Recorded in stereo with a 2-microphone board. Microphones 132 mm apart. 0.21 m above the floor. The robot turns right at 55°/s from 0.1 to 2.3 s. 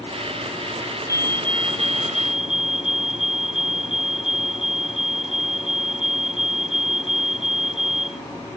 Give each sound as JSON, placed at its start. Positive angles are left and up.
{"t": 1.1, "sound": "a fire alarm", "azimuth_deg": -155}